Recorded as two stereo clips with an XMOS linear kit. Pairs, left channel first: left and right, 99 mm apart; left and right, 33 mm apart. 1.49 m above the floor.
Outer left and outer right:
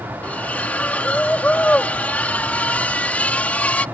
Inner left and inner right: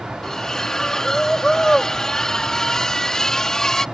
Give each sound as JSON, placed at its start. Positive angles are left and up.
{"t": 0.2, "sound": "a splash", "side_deg": 15}